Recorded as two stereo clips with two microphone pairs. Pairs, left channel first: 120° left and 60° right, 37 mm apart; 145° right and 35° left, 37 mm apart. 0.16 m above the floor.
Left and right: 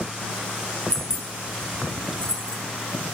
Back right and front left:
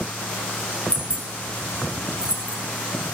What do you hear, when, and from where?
0.9 s keys jangling: 60° left, 1.1 m